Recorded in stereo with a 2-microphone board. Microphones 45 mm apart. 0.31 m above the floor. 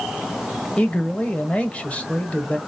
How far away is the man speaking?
About 1.1 m.